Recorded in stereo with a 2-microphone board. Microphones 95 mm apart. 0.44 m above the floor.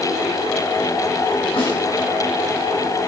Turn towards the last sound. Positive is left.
turn(degrees=65)  # may be behind; listen again after turning